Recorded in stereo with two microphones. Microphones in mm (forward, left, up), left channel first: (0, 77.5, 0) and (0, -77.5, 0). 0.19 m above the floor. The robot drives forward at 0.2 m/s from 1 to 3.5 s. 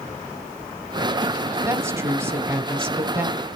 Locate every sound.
1.6 s a woman speaking: 15° right (ahead or behind), 1.1 m